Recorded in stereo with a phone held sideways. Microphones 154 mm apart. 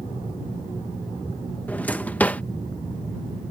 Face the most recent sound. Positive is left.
turn(degrees=10)  # may be behind; listen again after turning